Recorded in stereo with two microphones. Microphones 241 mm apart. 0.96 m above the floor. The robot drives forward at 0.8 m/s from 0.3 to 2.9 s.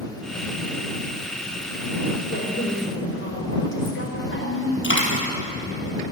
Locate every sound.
2.3 s a woman speaking: 50° left (ahead or behind), 4.5 m; by 4.7 s 60° left (ahead or behind), 4 m
4.8 s a dropped coin: 55° left (ahead or behind), 3.5 m